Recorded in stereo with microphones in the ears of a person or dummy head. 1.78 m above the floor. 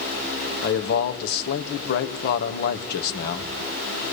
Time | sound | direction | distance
0.6 | a man speaking | 60° left (ahead or behind) | 3 m